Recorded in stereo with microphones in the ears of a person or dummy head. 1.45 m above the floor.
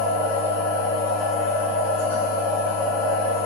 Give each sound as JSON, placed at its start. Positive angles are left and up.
{"t": 0.0, "sound": "a machine running", "side_deg": 70, "distance_m": 1.8}